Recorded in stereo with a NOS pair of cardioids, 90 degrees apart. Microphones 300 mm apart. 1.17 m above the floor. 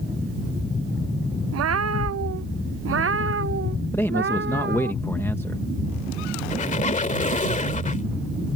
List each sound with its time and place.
1.5 s a cat meowing: 60° right; by 4.9 s 40° right
3.9 s a man speaking: 10° left
6.5 s a squeak: 30° left